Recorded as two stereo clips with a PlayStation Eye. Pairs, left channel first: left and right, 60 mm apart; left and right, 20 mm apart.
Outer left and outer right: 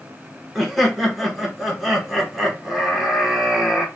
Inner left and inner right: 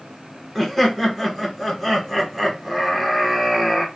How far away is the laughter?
About 1.0 m.